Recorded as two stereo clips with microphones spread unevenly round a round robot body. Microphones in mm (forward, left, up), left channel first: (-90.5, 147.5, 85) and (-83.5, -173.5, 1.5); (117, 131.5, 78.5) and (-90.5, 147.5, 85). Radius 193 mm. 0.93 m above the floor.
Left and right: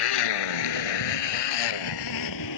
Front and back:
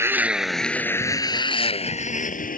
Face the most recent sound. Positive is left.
turn(degrees=45)